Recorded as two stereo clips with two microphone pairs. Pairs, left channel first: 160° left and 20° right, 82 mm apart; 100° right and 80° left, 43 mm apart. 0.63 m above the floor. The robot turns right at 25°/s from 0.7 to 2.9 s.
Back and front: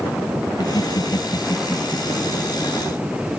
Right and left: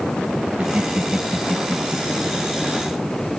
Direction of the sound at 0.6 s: 135° left.